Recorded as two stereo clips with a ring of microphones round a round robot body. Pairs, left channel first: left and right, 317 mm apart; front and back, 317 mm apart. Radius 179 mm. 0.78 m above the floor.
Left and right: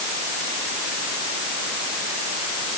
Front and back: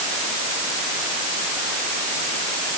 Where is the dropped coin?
No dropped coin in this recording.